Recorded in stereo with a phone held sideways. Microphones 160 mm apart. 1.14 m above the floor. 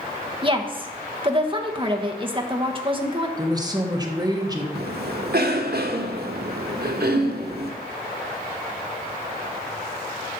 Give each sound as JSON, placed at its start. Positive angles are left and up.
{"t": 0.4, "sound": "a woman speaking", "side_deg": -30, "distance_m": 1.3}
{"t": 3.4, "sound": "a woman speaking", "side_deg": -25, "distance_m": 1.4}
{"t": 4.8, "sound": "a cough", "side_deg": -80, "distance_m": 1.2}